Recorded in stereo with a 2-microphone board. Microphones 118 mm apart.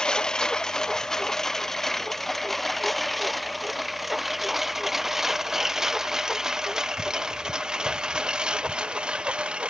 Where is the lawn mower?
5° left (ahead or behind); by 9.7 s 10° right (ahead or behind).